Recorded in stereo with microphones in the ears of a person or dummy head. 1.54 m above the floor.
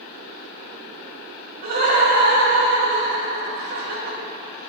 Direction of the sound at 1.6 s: 55° right (ahead or behind).